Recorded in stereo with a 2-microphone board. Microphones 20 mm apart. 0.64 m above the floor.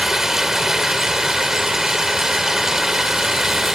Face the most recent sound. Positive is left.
turn(degrees=-20)  # may be behind; listen again after turning